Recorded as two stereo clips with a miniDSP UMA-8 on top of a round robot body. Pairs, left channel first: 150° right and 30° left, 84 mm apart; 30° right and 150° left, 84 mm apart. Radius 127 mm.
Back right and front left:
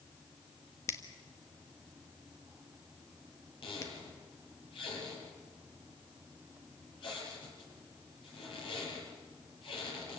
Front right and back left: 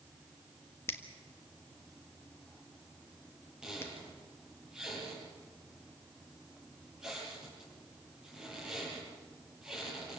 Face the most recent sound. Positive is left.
turn(degrees=-125)